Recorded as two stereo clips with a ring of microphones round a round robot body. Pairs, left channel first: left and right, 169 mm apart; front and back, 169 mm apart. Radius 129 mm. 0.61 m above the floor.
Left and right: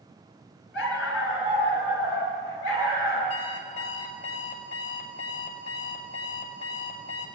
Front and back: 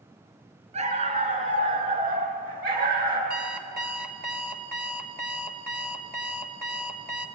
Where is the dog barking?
130° left, 3.5 m; by 3.2 s 150° left, 4.5 m.